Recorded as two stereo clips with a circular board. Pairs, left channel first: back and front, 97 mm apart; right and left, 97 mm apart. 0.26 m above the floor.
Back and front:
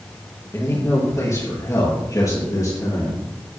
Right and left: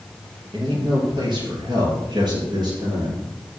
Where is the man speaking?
120° left, 5.5 m; by 3.2 s 130° left, 6 m.